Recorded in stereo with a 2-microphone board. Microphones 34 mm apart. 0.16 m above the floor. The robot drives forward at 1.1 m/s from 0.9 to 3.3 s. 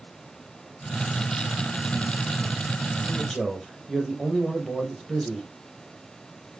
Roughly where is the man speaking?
Centre.